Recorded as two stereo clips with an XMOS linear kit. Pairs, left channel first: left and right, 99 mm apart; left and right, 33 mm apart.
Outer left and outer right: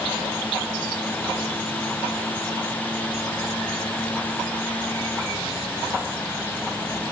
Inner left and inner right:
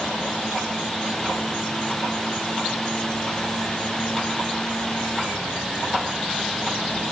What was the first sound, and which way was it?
Only background noise.